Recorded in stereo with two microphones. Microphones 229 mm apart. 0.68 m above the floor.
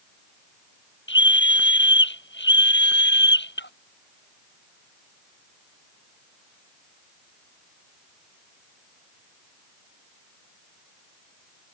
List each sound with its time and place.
1.1 s a scream: 55° left (ahead or behind); by 3.7 s 50° left (ahead or behind)